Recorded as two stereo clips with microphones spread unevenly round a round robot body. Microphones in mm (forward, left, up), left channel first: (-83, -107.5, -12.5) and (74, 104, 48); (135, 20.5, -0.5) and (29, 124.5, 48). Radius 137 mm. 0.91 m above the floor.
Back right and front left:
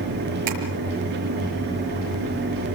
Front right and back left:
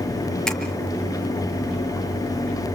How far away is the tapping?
About 5.5 m.